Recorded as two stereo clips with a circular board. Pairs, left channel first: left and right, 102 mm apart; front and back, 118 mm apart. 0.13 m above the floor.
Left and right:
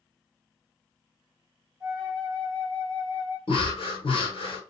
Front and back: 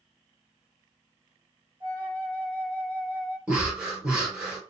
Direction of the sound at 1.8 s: Straight behind.